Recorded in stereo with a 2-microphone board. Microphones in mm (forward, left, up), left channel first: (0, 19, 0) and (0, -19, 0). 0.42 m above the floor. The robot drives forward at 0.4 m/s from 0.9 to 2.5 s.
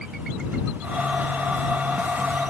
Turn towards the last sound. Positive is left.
No sound to turn to.